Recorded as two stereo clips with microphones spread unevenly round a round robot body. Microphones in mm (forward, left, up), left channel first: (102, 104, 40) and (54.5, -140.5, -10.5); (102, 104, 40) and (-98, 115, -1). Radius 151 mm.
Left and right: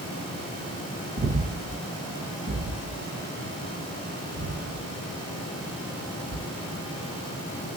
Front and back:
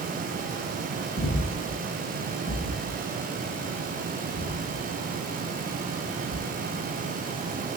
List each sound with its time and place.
1.2 s breathing: 35° right, 0.6 m